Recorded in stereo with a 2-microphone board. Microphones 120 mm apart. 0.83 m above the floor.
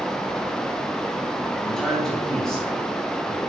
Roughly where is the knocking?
No knocking in this recording.